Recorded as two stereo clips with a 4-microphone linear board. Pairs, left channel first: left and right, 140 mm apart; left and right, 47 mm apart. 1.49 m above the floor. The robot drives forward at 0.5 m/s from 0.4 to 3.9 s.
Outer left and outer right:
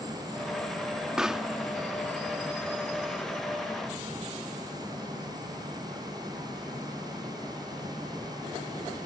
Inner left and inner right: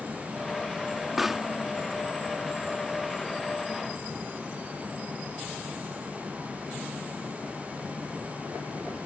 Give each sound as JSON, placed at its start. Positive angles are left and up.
{"t": 1.2, "sound": "a pop", "side_deg": -5}